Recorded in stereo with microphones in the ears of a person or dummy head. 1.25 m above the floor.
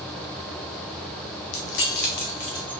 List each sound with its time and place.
1.5 s keys jangling: 65° left (ahead or behind), 1.0 m; by 2.7 s 10° left (ahead or behind), 0.5 m